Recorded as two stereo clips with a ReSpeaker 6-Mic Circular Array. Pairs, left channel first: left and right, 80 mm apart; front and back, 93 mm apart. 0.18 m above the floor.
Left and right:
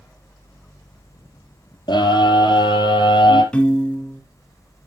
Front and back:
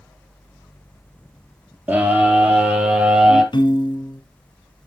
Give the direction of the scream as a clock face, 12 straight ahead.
8 o'clock.